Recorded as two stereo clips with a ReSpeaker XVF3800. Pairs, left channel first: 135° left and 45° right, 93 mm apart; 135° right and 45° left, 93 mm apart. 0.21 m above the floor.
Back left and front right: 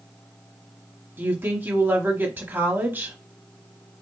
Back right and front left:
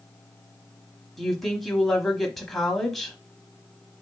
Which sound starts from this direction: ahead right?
A woman speaking, at 1.2 s.